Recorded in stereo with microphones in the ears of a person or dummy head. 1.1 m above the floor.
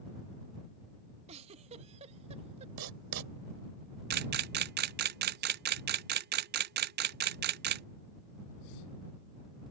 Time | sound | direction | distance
1.3 | a giggle | 35° right (ahead or behind) | ?
2.8 | writing | 75° right (ahead or behind) | ?
4.1 | a camera shutter | 50° right (ahead or behind) | ?